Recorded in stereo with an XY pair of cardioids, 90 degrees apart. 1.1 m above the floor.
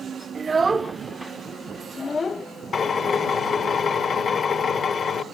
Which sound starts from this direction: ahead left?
A drill, at 2.7 s.